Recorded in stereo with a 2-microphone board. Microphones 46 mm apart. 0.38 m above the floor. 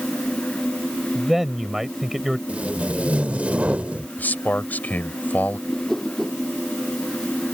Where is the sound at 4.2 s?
40° left (ahead or behind).